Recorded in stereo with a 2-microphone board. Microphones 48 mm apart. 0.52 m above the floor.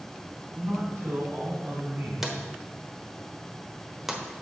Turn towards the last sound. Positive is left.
turn(degrees=-5)  # may be behind; listen again after turning